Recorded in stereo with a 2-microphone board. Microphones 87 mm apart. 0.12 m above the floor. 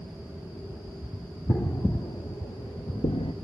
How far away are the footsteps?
About 1.7 m.